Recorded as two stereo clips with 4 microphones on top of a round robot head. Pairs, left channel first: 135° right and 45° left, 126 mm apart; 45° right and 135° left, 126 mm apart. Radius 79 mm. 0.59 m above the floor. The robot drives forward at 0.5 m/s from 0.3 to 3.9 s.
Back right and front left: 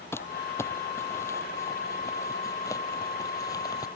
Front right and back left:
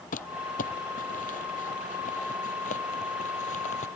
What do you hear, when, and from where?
0.1 s crumpling: 65° right; by 3.9 s 75° right